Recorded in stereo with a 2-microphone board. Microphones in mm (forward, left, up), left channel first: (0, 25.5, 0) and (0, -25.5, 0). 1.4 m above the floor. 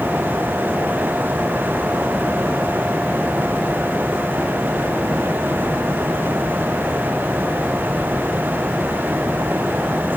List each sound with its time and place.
Only background noise.